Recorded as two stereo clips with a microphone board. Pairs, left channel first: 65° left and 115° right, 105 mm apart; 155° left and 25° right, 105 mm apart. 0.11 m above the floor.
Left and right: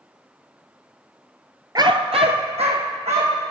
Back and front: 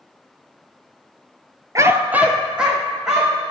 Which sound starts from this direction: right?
A dog barking, at 1.8 s.